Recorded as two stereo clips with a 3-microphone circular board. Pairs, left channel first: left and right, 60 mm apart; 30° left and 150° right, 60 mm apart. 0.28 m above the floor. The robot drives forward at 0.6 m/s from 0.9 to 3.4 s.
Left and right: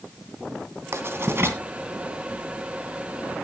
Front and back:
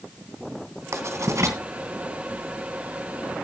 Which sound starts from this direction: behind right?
Writing, at 0.9 s.